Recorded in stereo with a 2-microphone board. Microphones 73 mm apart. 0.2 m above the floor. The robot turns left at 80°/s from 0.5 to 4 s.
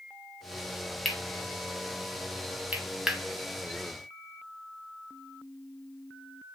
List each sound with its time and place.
1.1 s cutlery clinking: centre (ahead or behind), 0.7 m